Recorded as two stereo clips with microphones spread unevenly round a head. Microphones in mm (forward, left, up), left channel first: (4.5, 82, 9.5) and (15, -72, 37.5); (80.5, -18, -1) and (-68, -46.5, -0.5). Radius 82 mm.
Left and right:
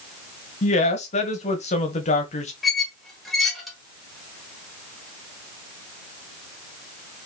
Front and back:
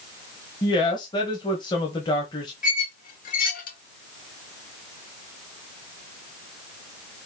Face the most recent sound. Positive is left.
turn(degrees=0)